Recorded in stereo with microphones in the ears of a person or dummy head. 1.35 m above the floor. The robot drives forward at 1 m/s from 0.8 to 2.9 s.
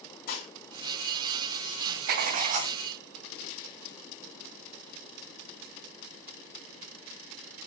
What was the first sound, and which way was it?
Dishes clattering, 60° left (ahead or behind).